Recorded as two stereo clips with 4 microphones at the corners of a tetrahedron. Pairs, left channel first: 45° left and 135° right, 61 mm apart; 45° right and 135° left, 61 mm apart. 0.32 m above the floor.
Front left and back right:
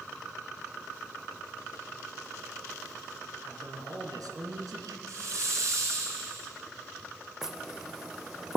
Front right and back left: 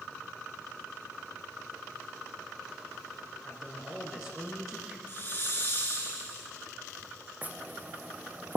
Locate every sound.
3.4 s a man speaking: 145° right, 3.5 m
5.1 s a hiss: 100° right, 4 m
7.4 s knocking: 150° left, 0.8 m